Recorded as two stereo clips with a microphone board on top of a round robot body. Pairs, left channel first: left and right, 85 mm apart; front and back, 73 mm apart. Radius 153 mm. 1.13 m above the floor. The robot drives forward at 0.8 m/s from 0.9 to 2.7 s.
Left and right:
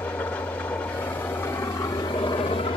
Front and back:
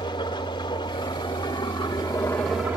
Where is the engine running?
15° left, 1.5 m; by 2.8 s 110° left, 0.7 m.